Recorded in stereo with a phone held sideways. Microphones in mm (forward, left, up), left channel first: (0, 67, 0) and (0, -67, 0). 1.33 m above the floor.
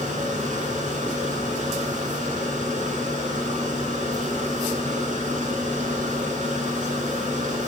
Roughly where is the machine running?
Right.